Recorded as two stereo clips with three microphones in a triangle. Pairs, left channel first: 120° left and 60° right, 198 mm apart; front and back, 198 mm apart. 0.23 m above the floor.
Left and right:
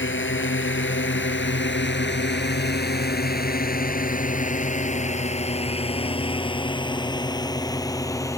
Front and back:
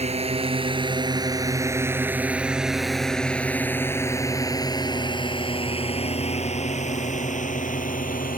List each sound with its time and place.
0.0 s a drone: 125° left; by 8.4 s 45° left